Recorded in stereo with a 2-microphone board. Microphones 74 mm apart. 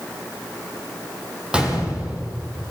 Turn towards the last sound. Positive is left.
turn(degrees=-15)  # may be behind; listen again after turning